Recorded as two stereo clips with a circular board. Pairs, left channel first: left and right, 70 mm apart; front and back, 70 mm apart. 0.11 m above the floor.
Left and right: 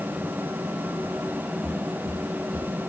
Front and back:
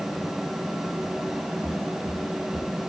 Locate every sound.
1.6 s footsteps: 5° left, 5 m